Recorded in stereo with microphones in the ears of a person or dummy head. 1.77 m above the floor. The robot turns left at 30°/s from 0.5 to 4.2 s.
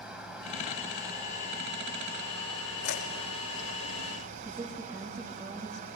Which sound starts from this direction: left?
Chewing, at 2.8 s.